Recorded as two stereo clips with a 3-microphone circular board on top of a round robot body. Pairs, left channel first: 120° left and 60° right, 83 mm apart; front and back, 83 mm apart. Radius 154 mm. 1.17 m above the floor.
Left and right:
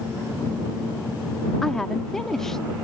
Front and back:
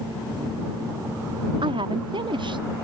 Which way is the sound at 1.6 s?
155° right.